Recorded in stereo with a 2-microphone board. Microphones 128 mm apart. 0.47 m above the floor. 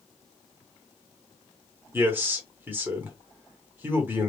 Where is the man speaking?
15° right (ahead or behind), 1.1 m.